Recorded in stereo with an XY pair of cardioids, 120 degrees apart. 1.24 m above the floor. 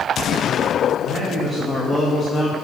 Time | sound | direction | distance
1.0 | a man speaking | 30° right | 2 m